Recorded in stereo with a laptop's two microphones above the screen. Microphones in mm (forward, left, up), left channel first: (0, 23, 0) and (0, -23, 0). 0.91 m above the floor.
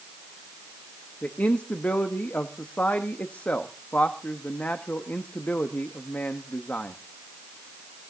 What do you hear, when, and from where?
1.2 s a man speaking: 35° left (ahead or behind), 1.2 m